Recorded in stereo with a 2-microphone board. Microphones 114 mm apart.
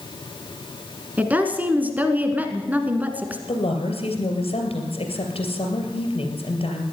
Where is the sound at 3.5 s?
60° left (ahead or behind), 3 m.